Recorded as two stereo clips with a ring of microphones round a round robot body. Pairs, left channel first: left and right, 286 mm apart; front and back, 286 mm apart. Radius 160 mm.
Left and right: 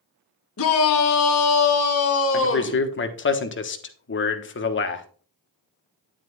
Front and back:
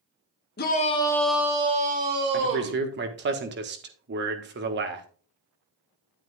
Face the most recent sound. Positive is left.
turn(degrees=130)